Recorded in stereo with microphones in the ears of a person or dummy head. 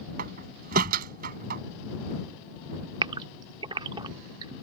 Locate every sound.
0.2 s a door slam: 45° right (ahead or behind)
3.0 s a gasp: 30° right (ahead or behind)